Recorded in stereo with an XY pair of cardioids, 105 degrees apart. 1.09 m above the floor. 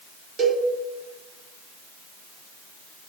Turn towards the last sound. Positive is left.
turn(degrees=-45)